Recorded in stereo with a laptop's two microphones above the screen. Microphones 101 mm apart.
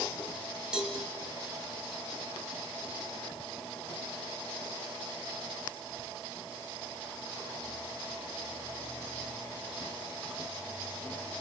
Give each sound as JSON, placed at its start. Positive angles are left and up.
{"t": 0.7, "sound": "a cowbell", "side_deg": -10, "distance_m": 2.5}